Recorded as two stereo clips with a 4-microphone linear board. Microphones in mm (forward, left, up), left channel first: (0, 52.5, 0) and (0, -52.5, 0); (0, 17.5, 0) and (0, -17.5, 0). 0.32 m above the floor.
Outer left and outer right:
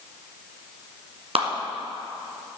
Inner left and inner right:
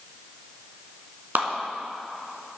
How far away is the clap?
About 2.5 m.